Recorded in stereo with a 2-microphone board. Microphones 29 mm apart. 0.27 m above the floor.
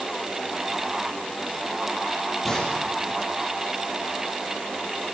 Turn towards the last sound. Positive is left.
turn(degrees=10)  # may be behind; listen again after turning